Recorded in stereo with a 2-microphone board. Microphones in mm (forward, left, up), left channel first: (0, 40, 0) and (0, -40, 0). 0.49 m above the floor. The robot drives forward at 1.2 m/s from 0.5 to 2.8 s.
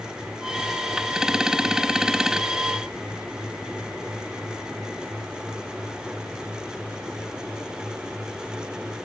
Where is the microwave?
No microwave in this recording.